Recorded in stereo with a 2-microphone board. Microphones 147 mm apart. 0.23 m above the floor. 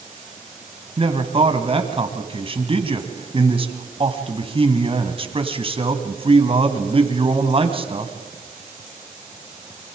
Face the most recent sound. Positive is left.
turn(degrees=-40)  # may be behind; listen again after turning